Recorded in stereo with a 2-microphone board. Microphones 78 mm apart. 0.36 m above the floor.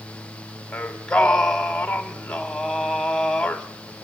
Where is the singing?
10° left (ahead or behind), 0.9 m.